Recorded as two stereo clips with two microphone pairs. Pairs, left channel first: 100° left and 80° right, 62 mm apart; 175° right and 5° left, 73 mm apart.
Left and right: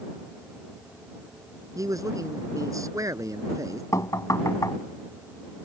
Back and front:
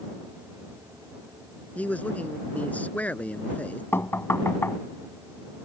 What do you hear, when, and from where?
1.8 s a man speaking: 110° right
3.9 s knocking: 125° left